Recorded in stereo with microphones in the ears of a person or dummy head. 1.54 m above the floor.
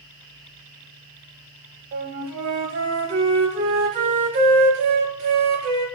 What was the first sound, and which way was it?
A flute, 55° right (ahead or behind).